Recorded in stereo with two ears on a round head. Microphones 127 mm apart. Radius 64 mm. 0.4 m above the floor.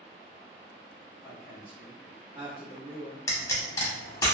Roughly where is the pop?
Left.